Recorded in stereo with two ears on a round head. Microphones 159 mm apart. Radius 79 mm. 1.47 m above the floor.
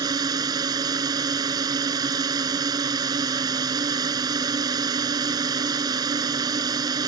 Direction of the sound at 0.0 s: 25° right (ahead or behind).